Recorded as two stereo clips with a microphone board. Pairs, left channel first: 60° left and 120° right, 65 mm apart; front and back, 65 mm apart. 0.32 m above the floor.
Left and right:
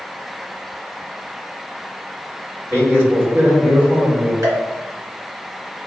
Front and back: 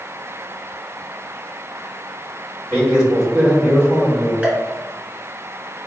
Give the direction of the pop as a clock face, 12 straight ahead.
4 o'clock.